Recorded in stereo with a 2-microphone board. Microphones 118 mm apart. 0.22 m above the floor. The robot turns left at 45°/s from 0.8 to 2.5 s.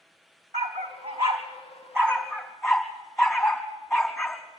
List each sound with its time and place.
0.5 s a dog barking: 75° right (ahead or behind), 4 m; by 4.4 s centre (ahead or behind), 4 m